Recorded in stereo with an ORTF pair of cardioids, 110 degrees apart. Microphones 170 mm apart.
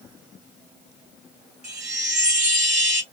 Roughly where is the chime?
Ahead.